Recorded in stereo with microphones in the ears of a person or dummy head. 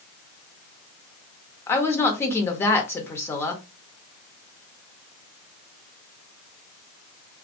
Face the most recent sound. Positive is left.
turn(degrees=15)  # may be behind; listen again after turning